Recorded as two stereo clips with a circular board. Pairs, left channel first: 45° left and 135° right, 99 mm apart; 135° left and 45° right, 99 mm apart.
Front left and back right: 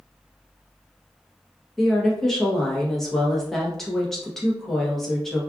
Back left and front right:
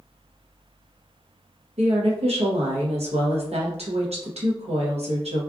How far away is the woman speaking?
About 1.0 m.